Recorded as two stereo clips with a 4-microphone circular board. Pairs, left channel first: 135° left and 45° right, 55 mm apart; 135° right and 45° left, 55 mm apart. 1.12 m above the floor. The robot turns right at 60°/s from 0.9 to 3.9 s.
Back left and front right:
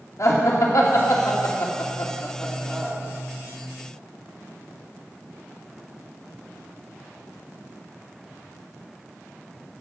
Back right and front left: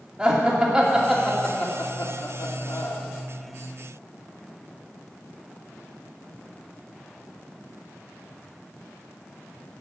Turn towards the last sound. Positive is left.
turn(degrees=-60)